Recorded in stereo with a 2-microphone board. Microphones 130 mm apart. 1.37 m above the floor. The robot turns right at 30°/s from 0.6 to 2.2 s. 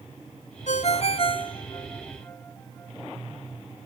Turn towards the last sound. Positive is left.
turn(degrees=20)  # may be behind; listen again after turning